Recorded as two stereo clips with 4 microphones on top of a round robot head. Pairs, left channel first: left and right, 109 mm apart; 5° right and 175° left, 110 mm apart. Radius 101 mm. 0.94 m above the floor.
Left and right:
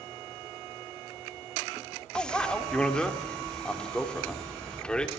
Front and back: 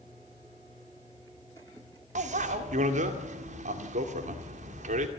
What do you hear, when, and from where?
2.1 s a bicycle bell: 175° left, 2 m